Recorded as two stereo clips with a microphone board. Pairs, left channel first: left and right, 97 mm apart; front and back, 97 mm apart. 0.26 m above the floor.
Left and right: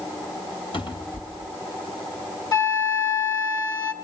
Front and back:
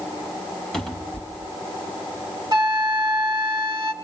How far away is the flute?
About 2.5 m.